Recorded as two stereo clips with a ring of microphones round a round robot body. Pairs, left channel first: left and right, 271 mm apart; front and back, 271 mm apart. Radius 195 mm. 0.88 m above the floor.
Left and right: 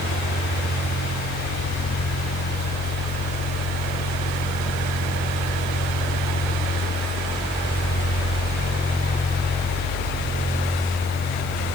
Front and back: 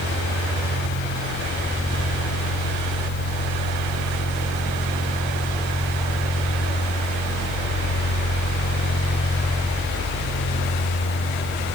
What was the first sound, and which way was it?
Only background noise.